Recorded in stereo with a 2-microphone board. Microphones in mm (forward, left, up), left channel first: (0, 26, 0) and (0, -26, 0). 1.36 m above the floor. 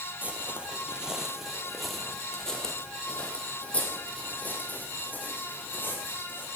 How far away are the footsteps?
About 1.7 m.